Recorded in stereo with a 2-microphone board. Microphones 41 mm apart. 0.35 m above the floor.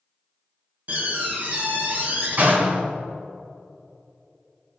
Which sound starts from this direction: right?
A door slam, at 0.9 s.